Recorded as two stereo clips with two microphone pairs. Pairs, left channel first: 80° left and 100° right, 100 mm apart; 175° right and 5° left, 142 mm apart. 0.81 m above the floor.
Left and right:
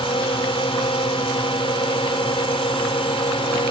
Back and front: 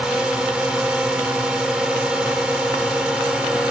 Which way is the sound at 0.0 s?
90° left.